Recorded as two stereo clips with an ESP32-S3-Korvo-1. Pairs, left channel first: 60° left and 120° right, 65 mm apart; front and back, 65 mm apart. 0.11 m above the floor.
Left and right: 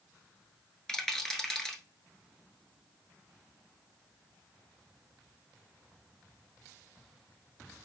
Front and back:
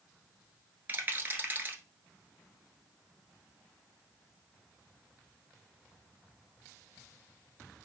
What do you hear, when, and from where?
0.9 s a rattle: 135° left, 1.0 m